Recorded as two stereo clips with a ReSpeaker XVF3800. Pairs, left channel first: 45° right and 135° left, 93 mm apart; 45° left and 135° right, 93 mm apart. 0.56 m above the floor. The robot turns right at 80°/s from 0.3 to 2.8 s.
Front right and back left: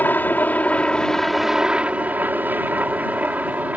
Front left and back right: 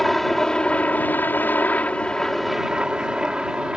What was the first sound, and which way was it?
A helicopter, 40° right.